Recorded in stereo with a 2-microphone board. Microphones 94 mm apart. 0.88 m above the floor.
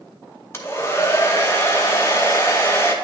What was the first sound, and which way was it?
A hair dryer, 25° left (ahead or behind).